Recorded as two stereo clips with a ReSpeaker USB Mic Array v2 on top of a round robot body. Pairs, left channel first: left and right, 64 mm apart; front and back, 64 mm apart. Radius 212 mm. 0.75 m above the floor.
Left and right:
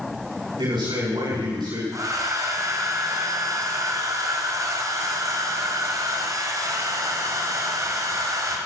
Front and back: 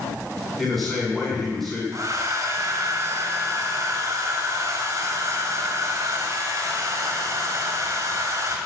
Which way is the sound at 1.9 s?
135° right.